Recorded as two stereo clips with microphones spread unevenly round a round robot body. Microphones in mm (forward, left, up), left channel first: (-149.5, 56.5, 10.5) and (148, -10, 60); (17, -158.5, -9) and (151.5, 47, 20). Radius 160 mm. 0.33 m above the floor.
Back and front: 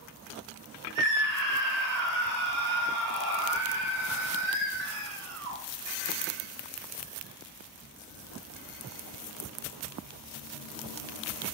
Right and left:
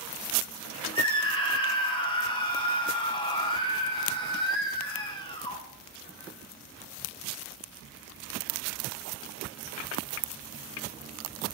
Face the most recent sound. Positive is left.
turn(degrees=-55)